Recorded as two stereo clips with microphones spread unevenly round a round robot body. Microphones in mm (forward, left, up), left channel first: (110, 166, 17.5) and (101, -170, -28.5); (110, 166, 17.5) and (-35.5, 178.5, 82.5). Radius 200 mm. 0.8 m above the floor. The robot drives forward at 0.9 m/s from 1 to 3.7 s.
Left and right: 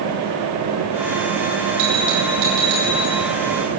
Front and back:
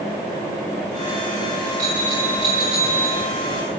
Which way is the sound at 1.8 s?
100° right.